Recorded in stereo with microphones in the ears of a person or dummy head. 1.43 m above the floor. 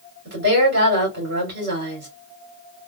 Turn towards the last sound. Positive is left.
turn(degrees=-60)  # may be behind; listen again after turning